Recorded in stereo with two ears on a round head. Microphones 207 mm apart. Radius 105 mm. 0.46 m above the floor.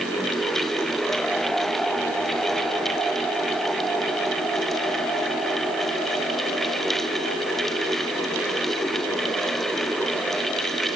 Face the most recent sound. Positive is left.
No sound to turn to.